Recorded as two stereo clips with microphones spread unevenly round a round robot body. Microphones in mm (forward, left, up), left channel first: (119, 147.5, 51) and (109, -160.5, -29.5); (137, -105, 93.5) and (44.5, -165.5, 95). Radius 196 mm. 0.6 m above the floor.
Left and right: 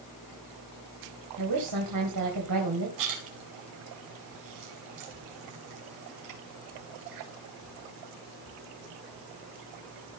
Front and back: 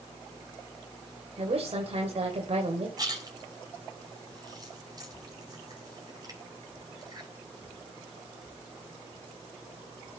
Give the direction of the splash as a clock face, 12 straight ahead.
3 o'clock.